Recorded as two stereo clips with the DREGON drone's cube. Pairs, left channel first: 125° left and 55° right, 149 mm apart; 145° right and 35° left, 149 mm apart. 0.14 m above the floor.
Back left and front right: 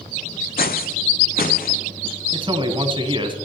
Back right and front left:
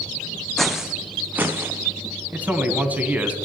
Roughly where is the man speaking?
Ahead right.